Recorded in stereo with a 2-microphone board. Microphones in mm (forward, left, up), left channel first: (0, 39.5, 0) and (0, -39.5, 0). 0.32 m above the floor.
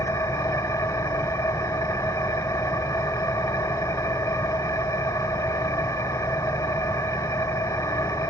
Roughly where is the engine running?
Left.